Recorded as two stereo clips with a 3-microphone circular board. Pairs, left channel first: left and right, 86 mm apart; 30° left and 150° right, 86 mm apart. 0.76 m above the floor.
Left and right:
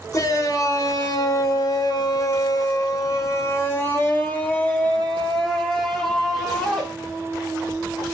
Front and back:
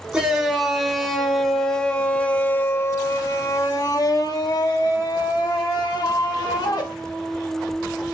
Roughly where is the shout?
Behind left.